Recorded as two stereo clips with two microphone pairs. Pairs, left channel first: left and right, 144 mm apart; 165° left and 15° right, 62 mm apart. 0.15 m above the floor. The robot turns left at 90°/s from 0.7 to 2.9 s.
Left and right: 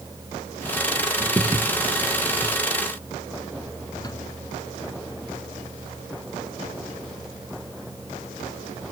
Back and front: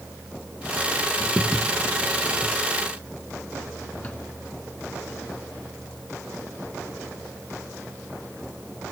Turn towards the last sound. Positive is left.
turn(degrees=125)